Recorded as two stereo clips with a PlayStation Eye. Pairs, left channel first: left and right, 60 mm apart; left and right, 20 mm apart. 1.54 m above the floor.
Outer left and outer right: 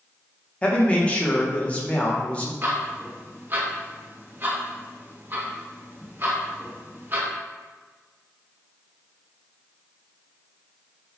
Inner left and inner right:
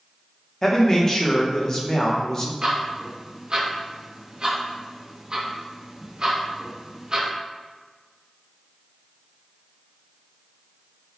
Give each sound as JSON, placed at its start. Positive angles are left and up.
{"t": 0.6, "sound": "a man speaking", "side_deg": 20, "distance_m": 0.7}
{"t": 2.6, "sound": "ticking", "side_deg": -35, "distance_m": 0.6}